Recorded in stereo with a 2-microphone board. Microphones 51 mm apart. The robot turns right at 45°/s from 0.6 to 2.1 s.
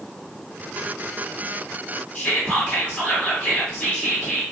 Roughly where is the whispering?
Left.